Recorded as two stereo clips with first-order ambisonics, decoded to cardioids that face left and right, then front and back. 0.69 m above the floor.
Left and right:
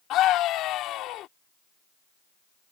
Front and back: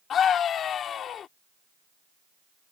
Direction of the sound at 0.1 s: 55° left.